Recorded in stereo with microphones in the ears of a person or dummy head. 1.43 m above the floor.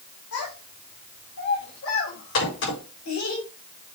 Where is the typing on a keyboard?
No typing on a keyboard in this recording.